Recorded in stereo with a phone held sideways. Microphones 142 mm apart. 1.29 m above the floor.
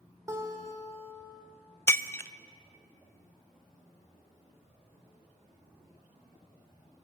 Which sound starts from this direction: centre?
Breaking glass, at 1.9 s.